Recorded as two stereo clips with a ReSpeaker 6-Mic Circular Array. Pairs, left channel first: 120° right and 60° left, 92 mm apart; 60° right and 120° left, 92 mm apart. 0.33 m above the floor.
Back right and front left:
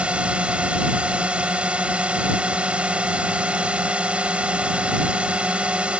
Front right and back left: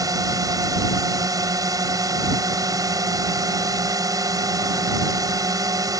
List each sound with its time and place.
0.0 s a drone: 130° left